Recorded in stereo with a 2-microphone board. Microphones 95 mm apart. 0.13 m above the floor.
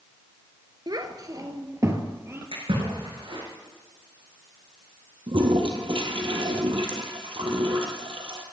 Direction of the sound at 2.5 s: 80° right.